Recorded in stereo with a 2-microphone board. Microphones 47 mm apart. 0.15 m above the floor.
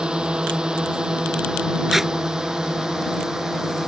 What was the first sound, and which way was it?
A drone, 20° right (ahead or behind).